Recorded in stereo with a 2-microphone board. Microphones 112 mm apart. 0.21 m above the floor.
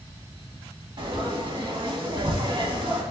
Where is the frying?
45° right (ahead or behind), 0.6 m.